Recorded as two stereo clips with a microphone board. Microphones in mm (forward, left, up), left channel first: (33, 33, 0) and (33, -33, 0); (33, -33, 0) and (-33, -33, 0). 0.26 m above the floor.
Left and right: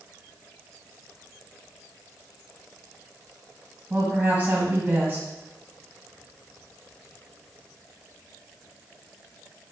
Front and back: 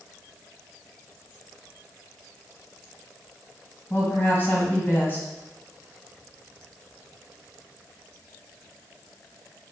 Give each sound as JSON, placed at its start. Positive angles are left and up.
{"t": 3.9, "sound": "a woman speaking", "azimuth_deg": -40, "distance_m": 1.8}